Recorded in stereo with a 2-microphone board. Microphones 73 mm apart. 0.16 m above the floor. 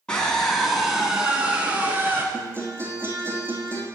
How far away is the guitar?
About 2.5 m.